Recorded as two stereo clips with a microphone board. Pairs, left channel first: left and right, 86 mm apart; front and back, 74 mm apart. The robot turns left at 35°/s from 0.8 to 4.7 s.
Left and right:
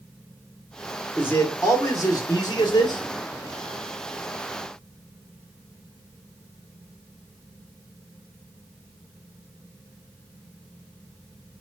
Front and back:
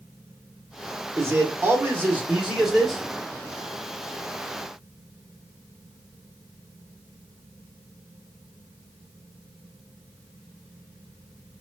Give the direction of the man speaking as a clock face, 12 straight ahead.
7 o'clock.